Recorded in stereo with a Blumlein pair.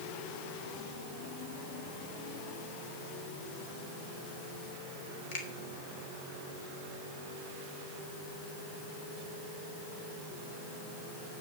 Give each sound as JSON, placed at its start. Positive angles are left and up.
{"t": 5.3, "sound": "a finger snap", "azimuth_deg": 50, "distance_m": 3.0}